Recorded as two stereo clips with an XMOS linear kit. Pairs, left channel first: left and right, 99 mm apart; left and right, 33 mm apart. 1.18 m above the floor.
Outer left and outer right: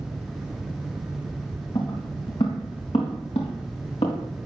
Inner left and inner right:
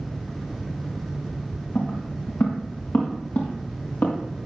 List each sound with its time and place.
1.8 s footsteps: 75° left (ahead or behind), 4 m; by 4.2 s 80° left, 5.5 m